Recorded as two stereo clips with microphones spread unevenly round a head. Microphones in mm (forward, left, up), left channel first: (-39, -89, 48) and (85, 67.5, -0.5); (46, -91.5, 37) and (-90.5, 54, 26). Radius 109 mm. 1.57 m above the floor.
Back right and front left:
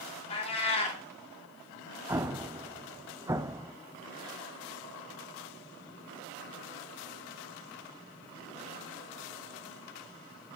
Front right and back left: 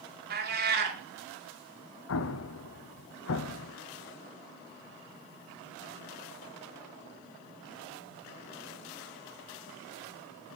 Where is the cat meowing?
175° left, 2.5 m.